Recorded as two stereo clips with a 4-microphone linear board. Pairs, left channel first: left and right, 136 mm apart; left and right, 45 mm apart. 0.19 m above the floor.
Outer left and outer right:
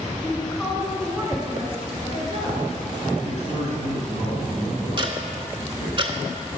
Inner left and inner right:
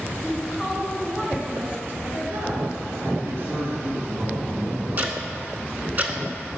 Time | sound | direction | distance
0.2 | a woman speaking | 10° left (ahead or behind) | 1.8 m
3.2 | a man speaking | 55° right (ahead or behind) | 2.0 m
5.0 | ticking | 40° right (ahead or behind) | 0.8 m